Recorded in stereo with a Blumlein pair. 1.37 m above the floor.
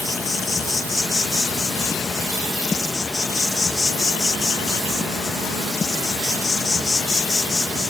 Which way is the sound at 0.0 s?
15° left.